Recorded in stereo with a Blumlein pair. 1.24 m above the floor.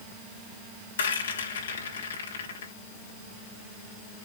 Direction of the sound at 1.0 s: 65° left.